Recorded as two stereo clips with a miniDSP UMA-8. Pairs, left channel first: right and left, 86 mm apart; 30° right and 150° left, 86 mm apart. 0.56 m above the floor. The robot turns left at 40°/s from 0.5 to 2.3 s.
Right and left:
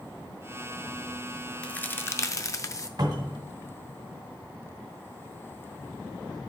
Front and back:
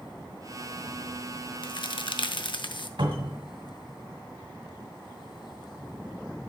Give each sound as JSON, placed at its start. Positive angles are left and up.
{"t": 1.6, "sound": "a crack", "azimuth_deg": -15, "distance_m": 0.5}
{"t": 3.0, "sound": "a cupboard door", "azimuth_deg": 125, "distance_m": 1.6}